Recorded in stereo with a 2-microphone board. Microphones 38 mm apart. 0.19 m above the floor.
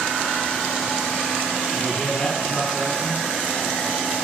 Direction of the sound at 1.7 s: 30° left (ahead or behind).